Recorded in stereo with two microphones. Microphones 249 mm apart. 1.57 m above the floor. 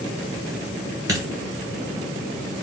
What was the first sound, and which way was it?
A dropped coin, 15° right (ahead or behind).